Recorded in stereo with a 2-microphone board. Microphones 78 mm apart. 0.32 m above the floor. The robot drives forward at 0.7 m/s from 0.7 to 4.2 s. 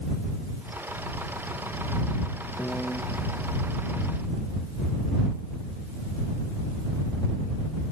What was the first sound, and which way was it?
A piano, 20° left (ahead or behind).